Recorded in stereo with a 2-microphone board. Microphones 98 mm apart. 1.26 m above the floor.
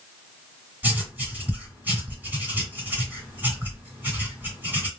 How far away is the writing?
About 1.9 m.